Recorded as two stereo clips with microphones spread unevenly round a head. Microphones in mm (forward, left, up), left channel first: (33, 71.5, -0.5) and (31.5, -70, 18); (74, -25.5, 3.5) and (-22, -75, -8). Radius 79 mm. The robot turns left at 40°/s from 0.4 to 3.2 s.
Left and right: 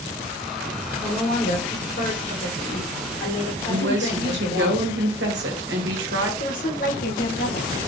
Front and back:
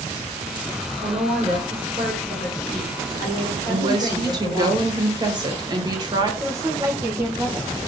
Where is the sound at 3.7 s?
105° right, 1.6 m.